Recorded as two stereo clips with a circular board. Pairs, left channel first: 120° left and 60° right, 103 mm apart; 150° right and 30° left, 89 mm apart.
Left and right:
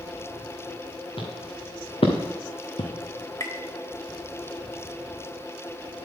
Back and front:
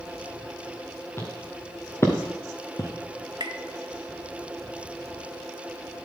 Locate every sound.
1.2 s footsteps: 150° left, 2.5 m; by 2.9 s 155° left, 1.5 m
3.4 s tapping: 60° left, 0.8 m